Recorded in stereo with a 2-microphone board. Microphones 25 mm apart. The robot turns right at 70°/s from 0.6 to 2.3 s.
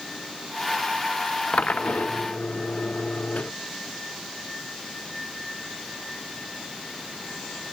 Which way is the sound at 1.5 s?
55° left.